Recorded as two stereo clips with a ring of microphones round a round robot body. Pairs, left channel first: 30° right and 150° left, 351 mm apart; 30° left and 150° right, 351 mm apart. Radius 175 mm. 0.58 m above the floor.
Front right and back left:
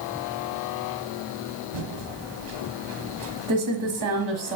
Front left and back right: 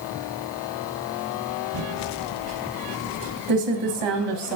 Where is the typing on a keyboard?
170° right, 1.4 m.